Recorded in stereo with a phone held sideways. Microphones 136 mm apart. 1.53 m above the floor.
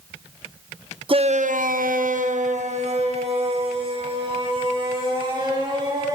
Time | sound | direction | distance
1.1 | a shout | 40° right (ahead or behind) | 0.9 m